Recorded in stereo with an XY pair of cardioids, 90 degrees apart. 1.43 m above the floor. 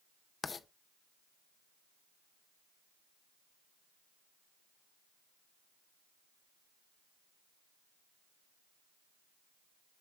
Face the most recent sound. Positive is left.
turn(degrees=40)